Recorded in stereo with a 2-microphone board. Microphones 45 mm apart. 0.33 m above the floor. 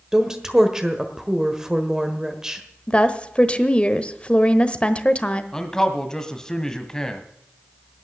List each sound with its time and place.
0.1 s a woman speaking: 15° right (ahead or behind), 1.3 m
2.9 s a woman speaking: 25° left (ahead or behind), 1.0 m
5.5 s a man speaking: 15° left (ahead or behind), 1.7 m